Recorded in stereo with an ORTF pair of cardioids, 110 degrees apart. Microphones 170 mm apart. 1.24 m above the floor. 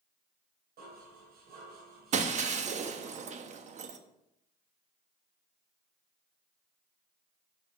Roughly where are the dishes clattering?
Ahead right.